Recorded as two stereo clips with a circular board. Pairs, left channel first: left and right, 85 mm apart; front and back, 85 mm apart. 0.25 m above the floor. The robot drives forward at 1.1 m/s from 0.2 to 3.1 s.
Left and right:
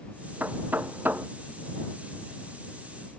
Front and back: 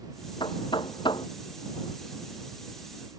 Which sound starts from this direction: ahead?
Knocking, at 0.4 s.